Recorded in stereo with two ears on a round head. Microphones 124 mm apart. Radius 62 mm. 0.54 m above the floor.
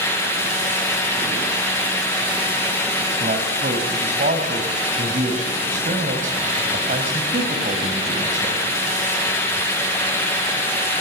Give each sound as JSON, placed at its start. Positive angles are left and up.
{"t": 3.2, "sound": "a man speaking", "side_deg": -60, "distance_m": 4.0}